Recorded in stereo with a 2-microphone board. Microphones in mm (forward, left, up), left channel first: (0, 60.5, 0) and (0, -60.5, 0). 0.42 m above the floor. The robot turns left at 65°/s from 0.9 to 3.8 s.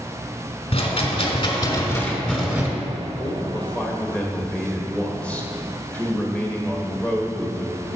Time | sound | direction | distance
0.7 | a rattle | 100° left | 1.7 m
3.2 | a man speaking | 55° left | 1.4 m